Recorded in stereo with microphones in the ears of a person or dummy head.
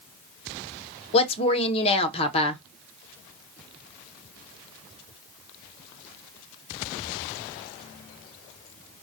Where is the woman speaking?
35° left (ahead or behind), 0.5 m.